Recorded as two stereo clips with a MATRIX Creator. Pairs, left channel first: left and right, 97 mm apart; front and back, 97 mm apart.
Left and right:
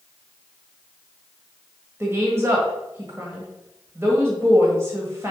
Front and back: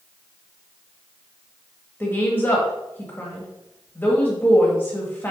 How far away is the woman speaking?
About 1.6 m.